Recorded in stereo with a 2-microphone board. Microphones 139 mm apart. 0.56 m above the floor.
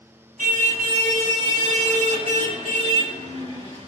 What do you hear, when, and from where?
0.4 s a car horn: 85° right, 2.5 m; by 3.9 s 50° right (ahead or behind), 4.5 m